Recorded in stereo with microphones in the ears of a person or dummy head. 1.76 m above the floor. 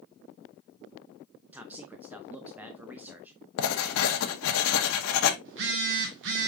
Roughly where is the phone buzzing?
Right.